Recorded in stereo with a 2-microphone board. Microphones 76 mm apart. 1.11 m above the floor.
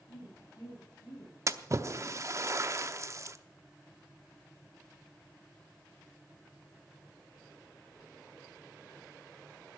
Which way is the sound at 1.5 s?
40° right (ahead or behind).